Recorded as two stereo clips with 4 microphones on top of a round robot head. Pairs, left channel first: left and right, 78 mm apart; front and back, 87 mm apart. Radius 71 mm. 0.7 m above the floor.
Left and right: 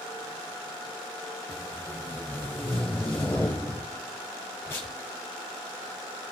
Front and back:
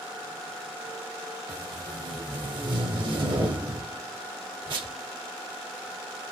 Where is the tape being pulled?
160° left, 0.7 m.